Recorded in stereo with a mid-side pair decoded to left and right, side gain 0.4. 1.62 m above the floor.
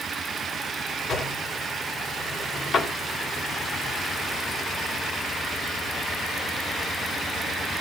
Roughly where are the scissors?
No scissors in this recording.